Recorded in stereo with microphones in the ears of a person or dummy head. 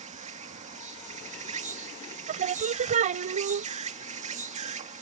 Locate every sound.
0.0 s an insect: 35° right (ahead or behind)
2.3 s singing: 35° right (ahead or behind)